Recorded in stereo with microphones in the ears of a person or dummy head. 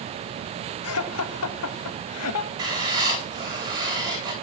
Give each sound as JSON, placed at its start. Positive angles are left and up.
{"t": 0.8, "sound": "laughter", "side_deg": 75, "distance_m": 2.0}
{"t": 2.6, "sound": "writing", "side_deg": -25, "distance_m": 7.0}